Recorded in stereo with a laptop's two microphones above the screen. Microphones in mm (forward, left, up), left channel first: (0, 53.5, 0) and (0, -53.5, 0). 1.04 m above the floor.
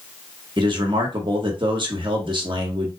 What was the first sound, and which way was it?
A man speaking, 50° right (ahead or behind).